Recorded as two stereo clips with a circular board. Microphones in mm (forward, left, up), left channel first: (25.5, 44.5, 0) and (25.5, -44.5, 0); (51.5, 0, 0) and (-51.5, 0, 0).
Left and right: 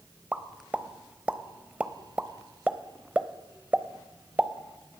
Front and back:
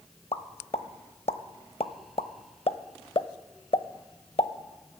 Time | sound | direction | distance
0.3 | a pop | 15° right | 0.6 m